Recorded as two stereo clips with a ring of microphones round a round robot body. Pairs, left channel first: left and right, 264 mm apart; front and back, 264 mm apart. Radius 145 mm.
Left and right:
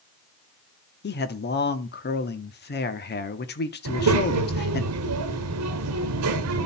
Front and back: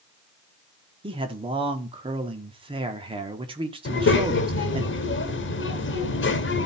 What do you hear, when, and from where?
1.0 s a man speaking: 115° left, 1.1 m
3.9 s a child speaking: 50° right, 1.1 m